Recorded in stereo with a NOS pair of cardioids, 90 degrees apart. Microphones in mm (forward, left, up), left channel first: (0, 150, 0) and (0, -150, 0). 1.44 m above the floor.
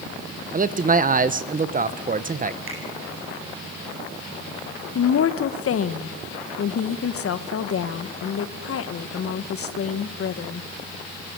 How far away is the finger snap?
About 9.5 m.